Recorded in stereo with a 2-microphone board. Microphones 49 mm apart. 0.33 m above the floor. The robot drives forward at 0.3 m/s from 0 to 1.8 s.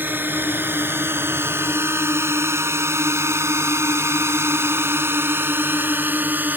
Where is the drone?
45° right (ahead or behind); by 6.6 s 40° right (ahead or behind).